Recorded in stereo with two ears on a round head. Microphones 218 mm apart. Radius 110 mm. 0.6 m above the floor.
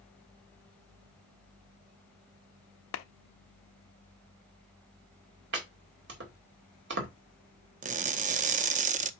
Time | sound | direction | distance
2.9 | a clap | 55° left (ahead or behind) | 0.8 m
5.5 | chopping | 50° right (ahead or behind) | 2 m
7.8 | crushing | 30° right (ahead or behind) | 0.6 m